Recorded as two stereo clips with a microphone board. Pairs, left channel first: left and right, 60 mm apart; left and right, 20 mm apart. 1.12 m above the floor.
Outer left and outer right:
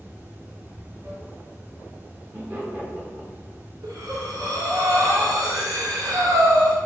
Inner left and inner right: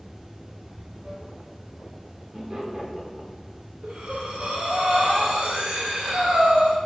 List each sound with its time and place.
0.0 s running water: 30° right (ahead or behind), 0.8 m
2.3 s laughter: 35° right (ahead or behind), 0.8 m
3.8 s breathing: 70° right (ahead or behind), 0.8 m